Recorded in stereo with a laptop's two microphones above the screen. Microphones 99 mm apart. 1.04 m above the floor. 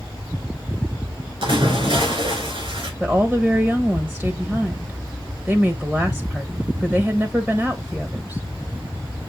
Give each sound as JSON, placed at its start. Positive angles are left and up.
{"t": 1.4, "sound": "a splash", "side_deg": -65, "distance_m": 3.0}
{"t": 3.0, "sound": "a woman speaking", "side_deg": -10, "distance_m": 0.9}